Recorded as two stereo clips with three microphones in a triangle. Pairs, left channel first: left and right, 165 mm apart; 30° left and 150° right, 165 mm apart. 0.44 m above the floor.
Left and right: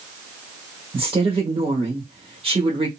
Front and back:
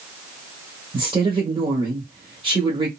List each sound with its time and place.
0.9 s a woman speaking: 115° right, 1.3 m